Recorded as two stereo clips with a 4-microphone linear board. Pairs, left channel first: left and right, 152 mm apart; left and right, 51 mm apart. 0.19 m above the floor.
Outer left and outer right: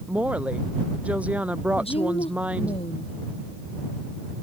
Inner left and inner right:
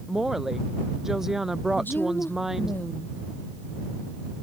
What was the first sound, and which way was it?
A woman speaking, 10° right (ahead or behind).